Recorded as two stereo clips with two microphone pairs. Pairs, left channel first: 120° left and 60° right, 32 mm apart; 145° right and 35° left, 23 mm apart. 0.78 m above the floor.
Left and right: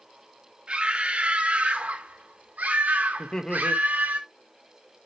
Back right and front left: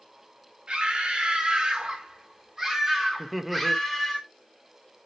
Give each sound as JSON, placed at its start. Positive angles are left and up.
{"t": 0.7, "sound": "a scream", "azimuth_deg": -5, "distance_m": 3.0}
{"t": 3.2, "sound": "laughter", "azimuth_deg": 115, "distance_m": 0.9}